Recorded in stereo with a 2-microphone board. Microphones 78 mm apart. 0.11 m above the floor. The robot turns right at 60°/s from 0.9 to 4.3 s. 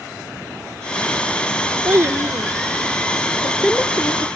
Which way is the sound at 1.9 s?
25° right (ahead or behind).